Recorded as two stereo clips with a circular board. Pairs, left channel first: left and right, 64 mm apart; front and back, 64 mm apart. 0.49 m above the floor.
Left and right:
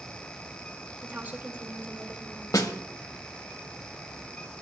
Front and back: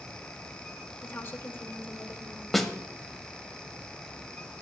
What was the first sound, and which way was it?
A woman speaking, 45° right.